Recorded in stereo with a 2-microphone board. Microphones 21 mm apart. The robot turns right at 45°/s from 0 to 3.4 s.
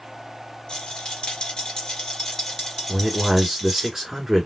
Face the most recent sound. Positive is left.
turn(degrees=-25)  # may be behind; listen again after turning